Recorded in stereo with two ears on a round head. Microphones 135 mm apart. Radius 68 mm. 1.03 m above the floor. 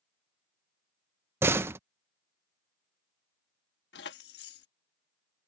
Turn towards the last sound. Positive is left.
turn(degrees=80)